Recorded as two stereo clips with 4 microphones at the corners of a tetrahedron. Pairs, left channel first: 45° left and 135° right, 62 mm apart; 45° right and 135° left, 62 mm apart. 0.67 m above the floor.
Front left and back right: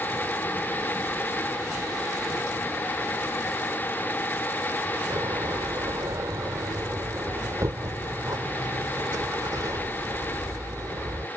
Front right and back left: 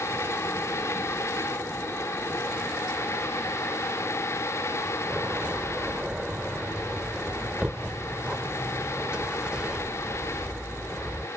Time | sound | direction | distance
5.1 | a door slam | 150° right | ?